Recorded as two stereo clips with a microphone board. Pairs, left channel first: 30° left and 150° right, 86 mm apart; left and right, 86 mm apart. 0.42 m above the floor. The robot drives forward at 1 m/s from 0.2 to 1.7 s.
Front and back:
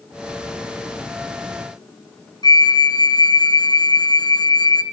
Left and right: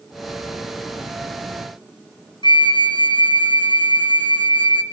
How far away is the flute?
About 1.6 m.